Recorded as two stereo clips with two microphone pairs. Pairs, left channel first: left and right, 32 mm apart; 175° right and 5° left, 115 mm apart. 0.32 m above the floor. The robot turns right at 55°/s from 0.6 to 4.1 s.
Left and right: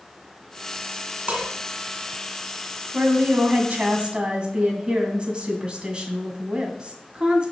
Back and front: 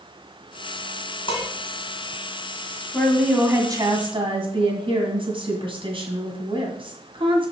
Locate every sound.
1.3 s dishes clattering: 135° right, 2.0 m; by 1.5 s 125° right, 2.0 m
2.9 s a woman speaking: 95° right, 2 m; by 7.5 s 30° right, 2 m